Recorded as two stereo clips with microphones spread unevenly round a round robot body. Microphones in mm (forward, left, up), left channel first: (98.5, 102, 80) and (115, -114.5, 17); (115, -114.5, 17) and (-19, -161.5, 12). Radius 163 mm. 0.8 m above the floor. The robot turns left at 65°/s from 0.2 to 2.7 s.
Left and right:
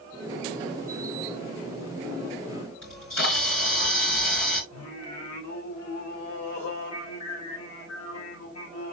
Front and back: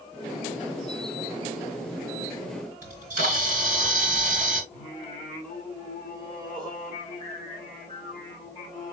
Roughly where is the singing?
Left.